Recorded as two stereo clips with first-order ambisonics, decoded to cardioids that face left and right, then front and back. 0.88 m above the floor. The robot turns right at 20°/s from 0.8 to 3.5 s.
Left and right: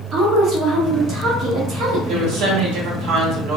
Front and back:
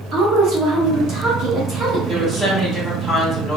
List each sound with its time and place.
0.1 s a woman speaking: 145° right, 1.2 m; by 2.6 s 110° right, 1.2 m
2.1 s a woman speaking: 105° right, 1.2 m; by 3.6 s 75° right, 1.2 m